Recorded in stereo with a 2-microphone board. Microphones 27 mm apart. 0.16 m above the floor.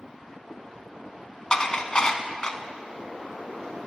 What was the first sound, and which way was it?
Dishes clattering, 30° left (ahead or behind).